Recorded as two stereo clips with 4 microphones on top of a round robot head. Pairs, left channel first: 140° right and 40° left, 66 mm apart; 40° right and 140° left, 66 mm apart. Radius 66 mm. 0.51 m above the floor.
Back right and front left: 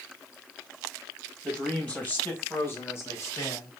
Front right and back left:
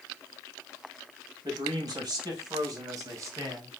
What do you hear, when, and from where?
1.4 s a man speaking: 145° left, 4 m; by 3.7 s 175° right, 3.5 m